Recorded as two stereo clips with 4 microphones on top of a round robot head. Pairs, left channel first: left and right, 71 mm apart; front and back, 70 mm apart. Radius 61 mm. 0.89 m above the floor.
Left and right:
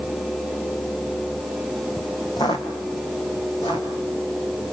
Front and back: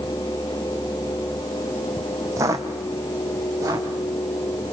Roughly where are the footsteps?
Behind left.